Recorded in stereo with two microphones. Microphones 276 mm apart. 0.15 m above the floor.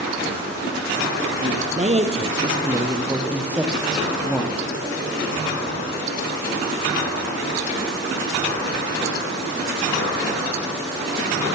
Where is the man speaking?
30° right (ahead or behind), 4 m; by 4.6 s 5° left (ahead or behind), 6.5 m.